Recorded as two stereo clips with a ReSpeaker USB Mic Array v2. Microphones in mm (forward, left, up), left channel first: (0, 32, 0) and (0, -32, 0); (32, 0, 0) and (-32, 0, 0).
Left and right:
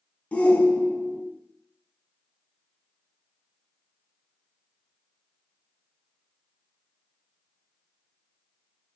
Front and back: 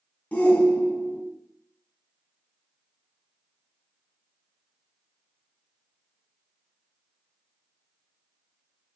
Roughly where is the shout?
Ahead left.